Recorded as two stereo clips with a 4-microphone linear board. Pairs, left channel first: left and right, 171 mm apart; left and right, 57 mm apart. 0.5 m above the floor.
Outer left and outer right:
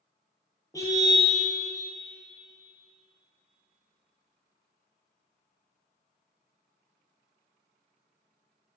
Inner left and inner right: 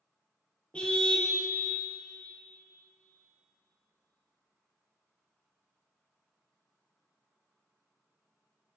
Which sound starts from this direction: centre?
A car horn, at 0.7 s.